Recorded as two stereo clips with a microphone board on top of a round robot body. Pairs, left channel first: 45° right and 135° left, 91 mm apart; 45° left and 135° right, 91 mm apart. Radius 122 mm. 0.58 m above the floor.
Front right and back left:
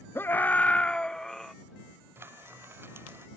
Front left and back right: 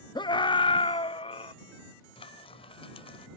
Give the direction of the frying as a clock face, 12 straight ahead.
10 o'clock.